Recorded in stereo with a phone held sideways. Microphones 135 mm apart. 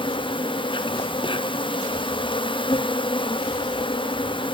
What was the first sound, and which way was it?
An insect, 35° left (ahead or behind).